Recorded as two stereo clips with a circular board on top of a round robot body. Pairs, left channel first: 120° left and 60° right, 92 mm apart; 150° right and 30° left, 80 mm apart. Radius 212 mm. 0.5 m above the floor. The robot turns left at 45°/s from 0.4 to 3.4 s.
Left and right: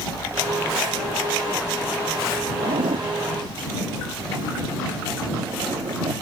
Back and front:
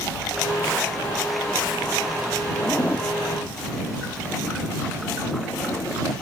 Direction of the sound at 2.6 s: 65° right.